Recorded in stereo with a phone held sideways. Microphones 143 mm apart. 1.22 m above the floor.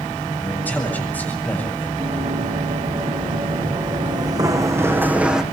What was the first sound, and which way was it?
A man speaking, 10° left (ahead or behind).